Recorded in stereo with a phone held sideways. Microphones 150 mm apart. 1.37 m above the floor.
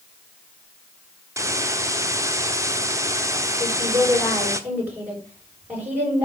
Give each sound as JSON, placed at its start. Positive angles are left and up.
{"t": 1.4, "sound": "a hiss", "side_deg": -20, "distance_m": 1.0}
{"t": 3.6, "sound": "a woman speaking", "side_deg": -10, "distance_m": 7.0}